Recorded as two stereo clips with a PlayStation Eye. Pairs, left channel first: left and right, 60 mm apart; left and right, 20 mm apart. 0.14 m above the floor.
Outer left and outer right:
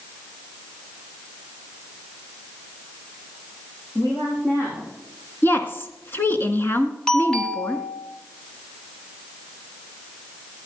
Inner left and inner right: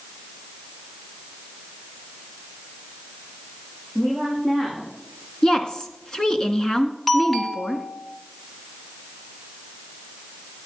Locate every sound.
4.0 s a woman speaking: 40° left (ahead or behind), 7.5 m
5.4 s a woman speaking: 35° left (ahead or behind), 1.5 m
7.1 s a doorbell: 15° left (ahead or behind), 1.6 m